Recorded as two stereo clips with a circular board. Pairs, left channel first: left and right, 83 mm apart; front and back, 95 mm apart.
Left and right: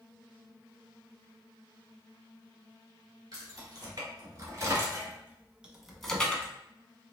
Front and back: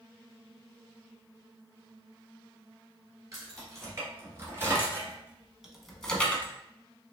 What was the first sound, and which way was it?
Keys jangling, 125° right.